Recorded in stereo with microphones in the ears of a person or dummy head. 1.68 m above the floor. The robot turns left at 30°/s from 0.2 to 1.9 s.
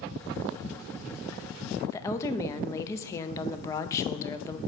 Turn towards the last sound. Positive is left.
turn(degrees=20)  # may be behind; listen again after turning